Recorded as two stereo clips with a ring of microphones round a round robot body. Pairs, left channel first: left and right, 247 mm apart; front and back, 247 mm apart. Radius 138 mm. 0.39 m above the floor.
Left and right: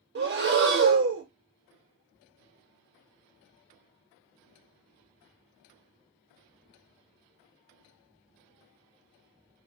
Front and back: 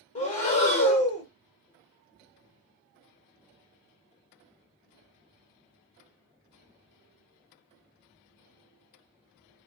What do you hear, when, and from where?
0.1 s breathing: 60° right, 1.0 m